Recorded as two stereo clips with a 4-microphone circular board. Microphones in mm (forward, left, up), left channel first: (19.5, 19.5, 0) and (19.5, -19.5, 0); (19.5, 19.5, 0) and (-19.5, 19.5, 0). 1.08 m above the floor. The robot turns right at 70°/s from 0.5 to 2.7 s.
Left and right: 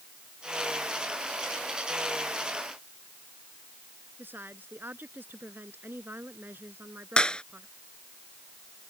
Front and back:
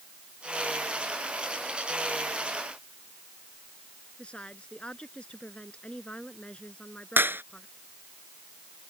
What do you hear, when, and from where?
4.2 s a woman speaking: 60° right
7.2 s a clap: 155° left